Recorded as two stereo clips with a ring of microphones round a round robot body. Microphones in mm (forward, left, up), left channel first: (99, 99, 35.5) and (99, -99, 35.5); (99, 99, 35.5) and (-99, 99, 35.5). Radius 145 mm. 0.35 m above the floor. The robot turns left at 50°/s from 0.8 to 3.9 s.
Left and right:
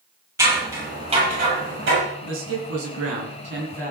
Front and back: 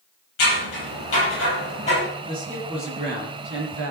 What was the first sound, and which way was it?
Scissors, 15° right.